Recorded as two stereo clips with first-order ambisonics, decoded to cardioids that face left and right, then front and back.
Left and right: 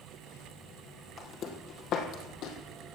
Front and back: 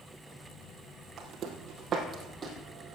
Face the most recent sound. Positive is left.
turn(degrees=115)